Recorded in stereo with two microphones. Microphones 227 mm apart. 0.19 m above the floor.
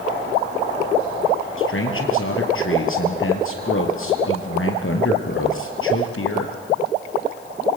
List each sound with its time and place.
1.6 s a man speaking: 65° left (ahead or behind), 4 m